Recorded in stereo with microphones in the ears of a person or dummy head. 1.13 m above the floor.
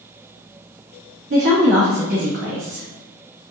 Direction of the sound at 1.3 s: 50° right (ahead or behind).